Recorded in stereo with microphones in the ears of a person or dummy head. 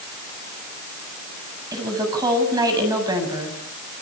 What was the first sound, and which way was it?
A woman speaking, 25° right (ahead or behind).